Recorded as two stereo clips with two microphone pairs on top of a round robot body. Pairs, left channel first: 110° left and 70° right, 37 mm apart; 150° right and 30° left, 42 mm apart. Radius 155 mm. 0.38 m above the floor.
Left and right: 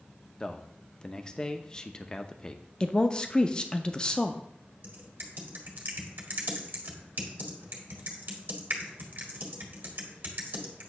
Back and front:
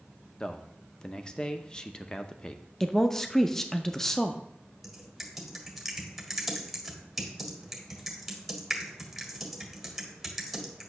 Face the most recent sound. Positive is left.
turn(degrees=-55)